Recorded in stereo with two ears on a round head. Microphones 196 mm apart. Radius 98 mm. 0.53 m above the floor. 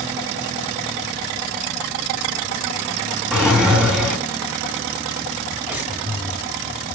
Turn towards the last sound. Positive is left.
turn(degrees=-10)  # may be behind; listen again after turning